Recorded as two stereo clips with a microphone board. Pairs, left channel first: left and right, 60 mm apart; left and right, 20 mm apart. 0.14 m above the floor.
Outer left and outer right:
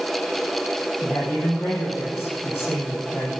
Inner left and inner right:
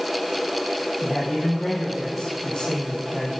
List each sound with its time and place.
1.0 s a man speaking: 40° left (ahead or behind), 3.5 m